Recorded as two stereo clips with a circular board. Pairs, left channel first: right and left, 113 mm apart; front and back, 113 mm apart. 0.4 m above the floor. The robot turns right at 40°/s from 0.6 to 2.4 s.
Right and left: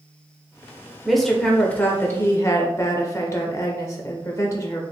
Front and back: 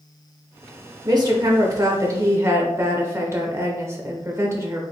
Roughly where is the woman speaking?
Behind.